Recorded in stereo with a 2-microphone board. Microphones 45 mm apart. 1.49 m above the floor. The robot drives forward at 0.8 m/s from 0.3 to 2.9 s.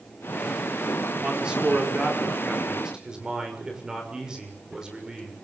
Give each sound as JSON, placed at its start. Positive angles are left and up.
{"t": 1.2, "sound": "a man speaking", "side_deg": -15, "distance_m": 4.5}